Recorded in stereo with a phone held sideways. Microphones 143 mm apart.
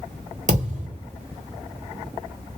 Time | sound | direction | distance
0.5 | a thud | 55° right (ahead or behind) | 1.6 m